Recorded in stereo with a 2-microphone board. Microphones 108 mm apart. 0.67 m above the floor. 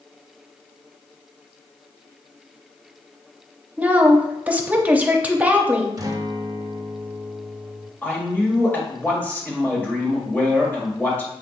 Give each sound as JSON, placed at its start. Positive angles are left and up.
{"t": 3.8, "sound": "a woman speaking", "side_deg": -15, "distance_m": 0.7}
{"t": 6.0, "sound": "a guitar", "side_deg": -30, "distance_m": 0.6}
{"t": 8.0, "sound": "a man speaking", "side_deg": 15, "distance_m": 1.4}